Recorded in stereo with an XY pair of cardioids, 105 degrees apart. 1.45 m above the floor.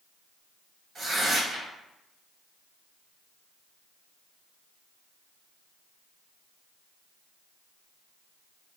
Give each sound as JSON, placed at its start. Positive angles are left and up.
{"t": 0.9, "sound": "tearing paper", "azimuth_deg": -45, "distance_m": 1.1}